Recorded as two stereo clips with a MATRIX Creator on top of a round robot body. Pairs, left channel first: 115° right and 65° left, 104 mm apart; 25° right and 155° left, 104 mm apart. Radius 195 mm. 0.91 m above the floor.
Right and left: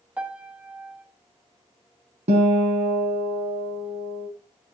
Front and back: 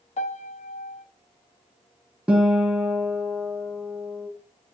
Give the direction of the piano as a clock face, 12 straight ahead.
12 o'clock.